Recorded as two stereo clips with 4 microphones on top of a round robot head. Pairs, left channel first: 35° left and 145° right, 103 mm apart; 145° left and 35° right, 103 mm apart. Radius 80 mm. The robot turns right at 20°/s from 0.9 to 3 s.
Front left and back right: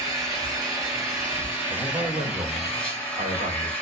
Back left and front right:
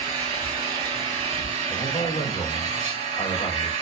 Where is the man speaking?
Straight behind, 1.1 m; by 3.7 s 155° right, 1.1 m.